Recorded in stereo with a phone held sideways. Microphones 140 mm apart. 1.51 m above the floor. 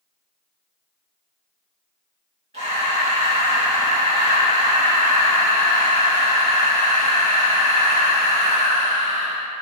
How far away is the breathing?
About 1.9 m.